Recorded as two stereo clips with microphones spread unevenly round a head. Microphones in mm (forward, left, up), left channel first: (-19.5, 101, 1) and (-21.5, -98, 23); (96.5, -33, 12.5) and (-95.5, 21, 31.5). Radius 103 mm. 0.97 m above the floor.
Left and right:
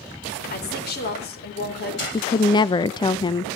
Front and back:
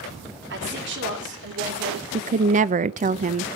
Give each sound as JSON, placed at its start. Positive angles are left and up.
{"t": 0.5, "sound": "a woman speaking", "azimuth_deg": 130, "distance_m": 4.0}
{"t": 2.1, "sound": "a woman speaking", "azimuth_deg": 130, "distance_m": 0.5}